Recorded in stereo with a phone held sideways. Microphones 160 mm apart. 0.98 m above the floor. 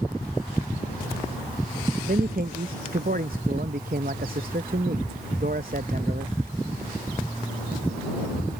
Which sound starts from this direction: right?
A man speaking, at 2.1 s.